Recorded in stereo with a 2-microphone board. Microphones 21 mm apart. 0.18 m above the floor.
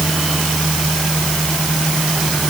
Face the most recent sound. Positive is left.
No sound to turn to.